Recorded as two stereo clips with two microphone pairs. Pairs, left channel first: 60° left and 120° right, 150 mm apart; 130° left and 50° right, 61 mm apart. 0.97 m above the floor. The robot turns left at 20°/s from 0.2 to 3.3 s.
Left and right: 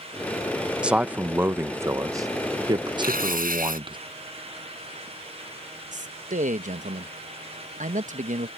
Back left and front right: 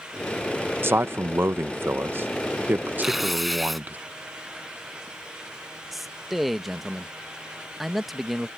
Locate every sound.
0.8 s a man speaking: 40° right; by 4.0 s 90° right
3.0 s tearing paper: 130° right; by 3.8 s 135° right
5.9 s a man speaking: 135° right